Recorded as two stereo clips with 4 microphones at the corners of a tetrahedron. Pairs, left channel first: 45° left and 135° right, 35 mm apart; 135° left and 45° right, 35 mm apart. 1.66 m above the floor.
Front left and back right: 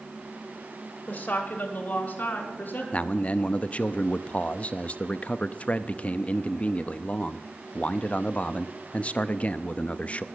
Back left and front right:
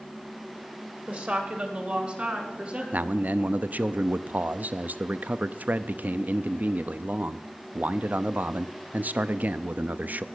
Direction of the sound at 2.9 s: 10° right.